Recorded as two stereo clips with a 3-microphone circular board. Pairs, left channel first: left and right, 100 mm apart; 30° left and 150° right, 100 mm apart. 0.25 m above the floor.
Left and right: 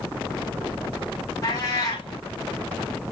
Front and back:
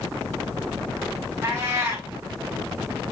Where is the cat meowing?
145° left, 4.5 m.